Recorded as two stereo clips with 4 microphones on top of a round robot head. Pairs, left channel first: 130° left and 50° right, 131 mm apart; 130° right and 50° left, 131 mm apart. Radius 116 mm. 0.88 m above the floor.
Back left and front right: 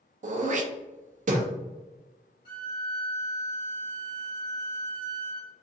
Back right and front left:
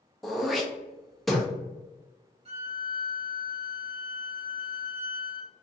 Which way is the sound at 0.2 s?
40° right.